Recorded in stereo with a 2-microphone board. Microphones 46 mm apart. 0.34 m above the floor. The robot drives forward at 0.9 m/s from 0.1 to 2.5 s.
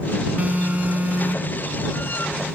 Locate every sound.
0.4 s an alarm: 35° right (ahead or behind); by 1.7 s 30° right (ahead or behind)